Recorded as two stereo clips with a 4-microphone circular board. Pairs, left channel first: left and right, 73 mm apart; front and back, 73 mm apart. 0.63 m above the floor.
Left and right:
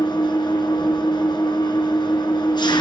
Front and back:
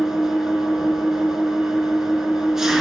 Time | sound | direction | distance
0.0 | an engine running | 95° left | 4.5 m